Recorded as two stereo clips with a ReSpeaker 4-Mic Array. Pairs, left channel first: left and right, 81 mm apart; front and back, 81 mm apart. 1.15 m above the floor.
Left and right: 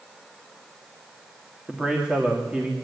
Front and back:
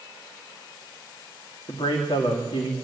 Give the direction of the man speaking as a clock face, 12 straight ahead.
12 o'clock.